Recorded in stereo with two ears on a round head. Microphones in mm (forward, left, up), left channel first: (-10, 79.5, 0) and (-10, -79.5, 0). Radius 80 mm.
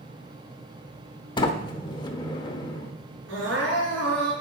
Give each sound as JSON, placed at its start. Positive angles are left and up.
{"t": 1.4, "sound": "a sliding door", "side_deg": 25, "distance_m": 0.9}
{"t": 3.3, "sound": "crying", "side_deg": -85, "distance_m": 4.5}